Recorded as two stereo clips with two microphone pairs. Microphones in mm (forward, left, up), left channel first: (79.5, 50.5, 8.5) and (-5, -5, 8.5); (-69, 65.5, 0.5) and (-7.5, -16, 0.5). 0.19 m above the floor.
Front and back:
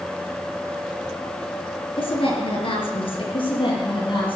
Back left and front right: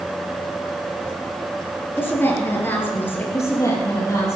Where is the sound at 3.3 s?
65° left, 6 m.